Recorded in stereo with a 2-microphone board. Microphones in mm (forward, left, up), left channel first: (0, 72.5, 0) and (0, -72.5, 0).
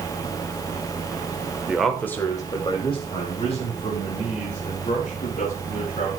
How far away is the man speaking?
About 1.3 m.